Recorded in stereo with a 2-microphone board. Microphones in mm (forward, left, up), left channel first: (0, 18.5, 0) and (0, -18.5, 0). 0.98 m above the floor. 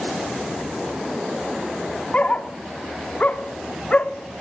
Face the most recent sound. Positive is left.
turn(degrees=35)  # may be behind; listen again after turning